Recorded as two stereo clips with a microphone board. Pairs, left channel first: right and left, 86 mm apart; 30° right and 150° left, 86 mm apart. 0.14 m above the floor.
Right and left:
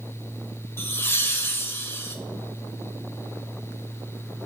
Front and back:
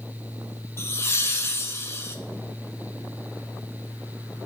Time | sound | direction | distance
0.8 | laughter | 55° right | 1.5 m